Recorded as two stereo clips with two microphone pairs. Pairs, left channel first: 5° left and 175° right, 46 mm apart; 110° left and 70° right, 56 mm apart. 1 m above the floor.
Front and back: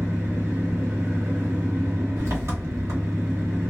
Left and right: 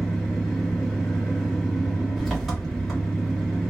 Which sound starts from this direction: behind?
An engine running, at 0.0 s.